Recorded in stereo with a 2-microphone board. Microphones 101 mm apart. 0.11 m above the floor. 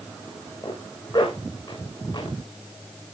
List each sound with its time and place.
0.6 s a zipper: 50° left (ahead or behind), 7 m